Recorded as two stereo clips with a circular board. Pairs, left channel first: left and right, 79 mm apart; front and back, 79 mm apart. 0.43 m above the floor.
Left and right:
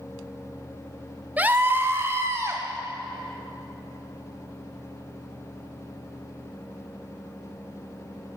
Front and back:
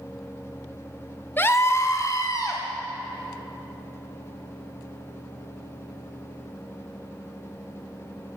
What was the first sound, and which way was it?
A scream, 40° right.